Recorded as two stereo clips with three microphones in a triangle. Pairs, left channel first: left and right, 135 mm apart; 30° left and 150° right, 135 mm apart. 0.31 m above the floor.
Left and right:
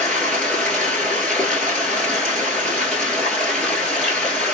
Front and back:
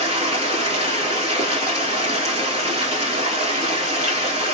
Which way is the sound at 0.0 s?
170° left.